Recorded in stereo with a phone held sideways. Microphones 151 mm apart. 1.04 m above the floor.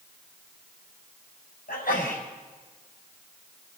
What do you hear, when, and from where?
1.7 s a sneeze: 75° left (ahead or behind), 6.5 m